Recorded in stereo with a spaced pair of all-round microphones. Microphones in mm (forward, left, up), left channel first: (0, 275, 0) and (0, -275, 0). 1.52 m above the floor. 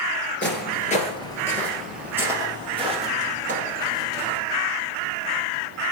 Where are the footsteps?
20° left (ahead or behind), 1.6 m; by 4.4 s 20° right (ahead or behind), 3 m.